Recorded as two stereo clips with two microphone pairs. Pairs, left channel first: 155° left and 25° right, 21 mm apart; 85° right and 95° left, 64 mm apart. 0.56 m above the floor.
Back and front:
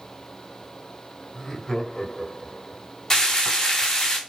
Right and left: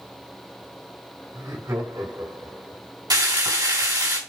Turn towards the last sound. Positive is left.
turn(degrees=80)